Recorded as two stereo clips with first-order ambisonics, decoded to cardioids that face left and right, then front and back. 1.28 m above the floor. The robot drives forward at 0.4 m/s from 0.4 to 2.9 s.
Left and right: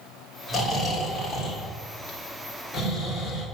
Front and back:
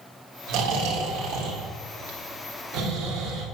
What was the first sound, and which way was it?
Snoring, 175° right.